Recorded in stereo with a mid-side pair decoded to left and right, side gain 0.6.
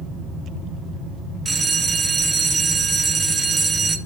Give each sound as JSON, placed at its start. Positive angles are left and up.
{"t": 1.4, "sound": "a bell", "azimuth_deg": -25, "distance_m": 0.8}